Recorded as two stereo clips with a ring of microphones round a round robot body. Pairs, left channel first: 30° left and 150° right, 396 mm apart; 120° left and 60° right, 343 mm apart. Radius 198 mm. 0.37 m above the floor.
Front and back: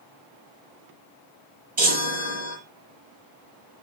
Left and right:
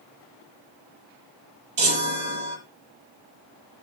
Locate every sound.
1.8 s a chime: 80° right, 8 m